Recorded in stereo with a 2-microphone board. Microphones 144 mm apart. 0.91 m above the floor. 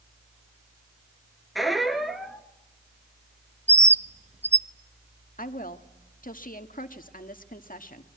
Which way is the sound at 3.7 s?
50° right (ahead or behind).